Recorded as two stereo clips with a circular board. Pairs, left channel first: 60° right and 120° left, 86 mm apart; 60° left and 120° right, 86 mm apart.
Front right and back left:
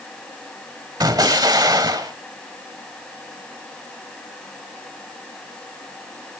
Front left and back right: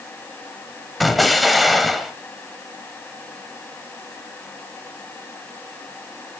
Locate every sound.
1.0 s an explosion: 150° left, 0.9 m